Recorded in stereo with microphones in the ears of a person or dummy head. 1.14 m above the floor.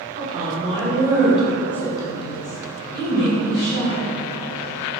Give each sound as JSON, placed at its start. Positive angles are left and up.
{"t": 0.1, "sound": "a woman speaking", "side_deg": -35, "distance_m": 1.1}